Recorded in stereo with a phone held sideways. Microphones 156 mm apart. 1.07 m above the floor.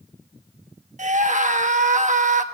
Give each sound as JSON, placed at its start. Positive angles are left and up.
{"t": 1.0, "sound": "a scream", "side_deg": -50, "distance_m": 1.3}